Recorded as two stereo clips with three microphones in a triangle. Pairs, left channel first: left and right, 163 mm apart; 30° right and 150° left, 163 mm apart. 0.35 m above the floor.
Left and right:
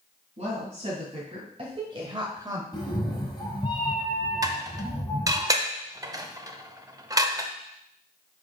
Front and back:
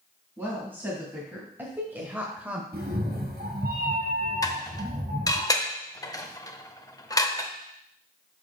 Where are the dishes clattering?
60° right, 0.6 m.